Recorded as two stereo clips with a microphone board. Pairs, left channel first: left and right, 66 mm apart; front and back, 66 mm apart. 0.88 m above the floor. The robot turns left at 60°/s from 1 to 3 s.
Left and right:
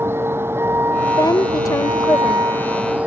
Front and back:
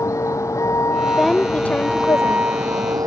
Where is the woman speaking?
95° left; by 2.4 s 20° left.